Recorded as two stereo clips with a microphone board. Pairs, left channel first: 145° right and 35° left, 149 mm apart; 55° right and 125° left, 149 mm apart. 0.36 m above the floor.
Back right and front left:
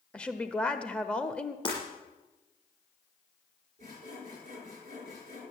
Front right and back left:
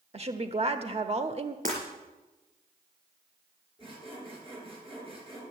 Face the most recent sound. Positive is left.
turn(degrees=70)